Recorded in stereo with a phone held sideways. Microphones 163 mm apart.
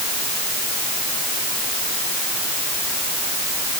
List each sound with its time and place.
Only background noise.